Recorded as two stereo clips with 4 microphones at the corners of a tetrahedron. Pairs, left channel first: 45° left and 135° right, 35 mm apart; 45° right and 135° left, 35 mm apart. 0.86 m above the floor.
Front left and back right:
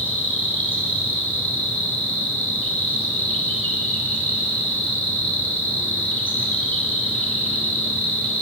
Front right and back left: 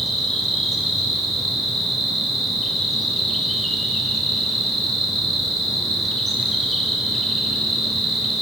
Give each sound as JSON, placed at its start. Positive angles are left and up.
{"t": 0.0, "sound": "an insect", "azimuth_deg": 45, "distance_m": 3.0}